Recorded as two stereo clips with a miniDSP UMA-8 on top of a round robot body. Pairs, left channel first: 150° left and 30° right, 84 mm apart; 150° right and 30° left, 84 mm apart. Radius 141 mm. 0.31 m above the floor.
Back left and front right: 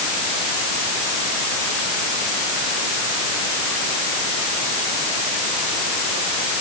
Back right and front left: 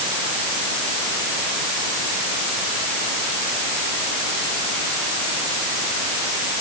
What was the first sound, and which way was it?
Only background noise.